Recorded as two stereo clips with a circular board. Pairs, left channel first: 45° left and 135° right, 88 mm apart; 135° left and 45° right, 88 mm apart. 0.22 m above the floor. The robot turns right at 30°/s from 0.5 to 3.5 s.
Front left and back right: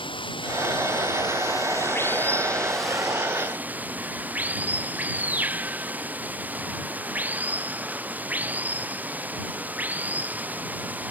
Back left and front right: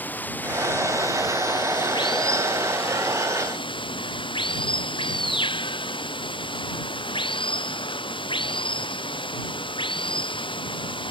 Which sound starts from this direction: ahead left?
Running water, at 0.0 s.